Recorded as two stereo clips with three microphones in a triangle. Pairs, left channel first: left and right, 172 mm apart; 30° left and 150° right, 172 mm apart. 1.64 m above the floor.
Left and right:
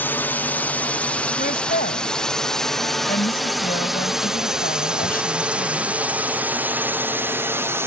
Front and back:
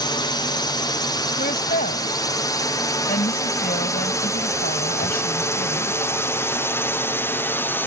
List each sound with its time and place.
0.0 s a drone: 25° left; by 7.9 s 35° right
1.4 s a woman speaking: 60° left